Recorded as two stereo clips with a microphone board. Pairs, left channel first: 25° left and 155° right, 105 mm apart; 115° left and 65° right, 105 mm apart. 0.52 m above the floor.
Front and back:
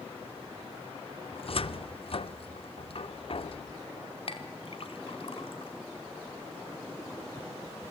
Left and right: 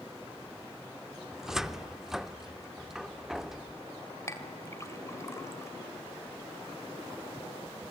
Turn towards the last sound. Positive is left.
turn(degrees=50)